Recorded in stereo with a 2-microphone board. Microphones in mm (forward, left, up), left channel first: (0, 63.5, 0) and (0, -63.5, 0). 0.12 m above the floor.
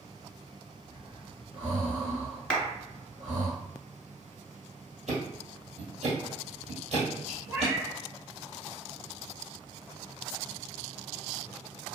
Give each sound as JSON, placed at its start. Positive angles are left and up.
{"t": 0.9, "sound": "breathing", "side_deg": -55, "distance_m": 1.8}
{"t": 2.5, "sound": "a clap", "side_deg": 10, "distance_m": 1.3}
{"t": 5.1, "sound": "ticking", "side_deg": -60, "distance_m": 2.0}
{"t": 7.5, "sound": "a cat meowing", "side_deg": -20, "distance_m": 0.8}